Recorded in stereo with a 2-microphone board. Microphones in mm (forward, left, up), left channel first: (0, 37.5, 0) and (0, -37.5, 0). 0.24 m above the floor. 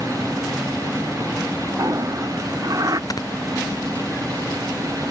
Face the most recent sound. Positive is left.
turn(degrees=55)  # may be behind; listen again after turning